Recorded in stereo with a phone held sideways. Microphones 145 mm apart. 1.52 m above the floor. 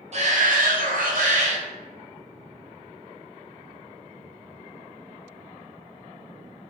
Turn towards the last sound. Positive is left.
turn(degrees=-55)  # may be behind; listen again after turning